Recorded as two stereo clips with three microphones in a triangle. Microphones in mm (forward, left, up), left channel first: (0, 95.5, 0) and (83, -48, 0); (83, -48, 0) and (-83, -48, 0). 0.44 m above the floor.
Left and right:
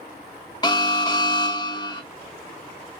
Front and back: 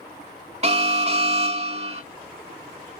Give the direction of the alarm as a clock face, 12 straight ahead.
6 o'clock.